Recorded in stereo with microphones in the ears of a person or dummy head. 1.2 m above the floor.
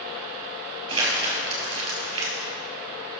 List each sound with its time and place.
0.9 s crumpling: 25° right (ahead or behind), 3 m